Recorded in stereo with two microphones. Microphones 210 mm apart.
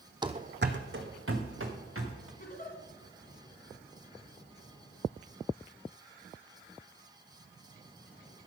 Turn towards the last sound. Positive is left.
turn(degrees=45)  # may be behind; listen again after turning